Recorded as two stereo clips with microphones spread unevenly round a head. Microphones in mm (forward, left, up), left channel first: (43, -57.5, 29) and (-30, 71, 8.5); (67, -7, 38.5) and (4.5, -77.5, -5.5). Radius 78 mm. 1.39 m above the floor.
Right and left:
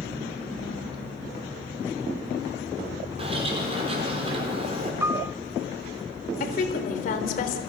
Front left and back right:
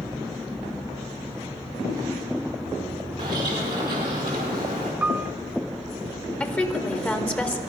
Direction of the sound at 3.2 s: 175° left.